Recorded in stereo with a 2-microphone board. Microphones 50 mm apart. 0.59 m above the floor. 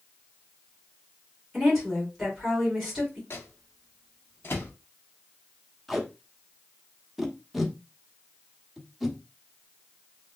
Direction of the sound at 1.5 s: 5° left (ahead or behind).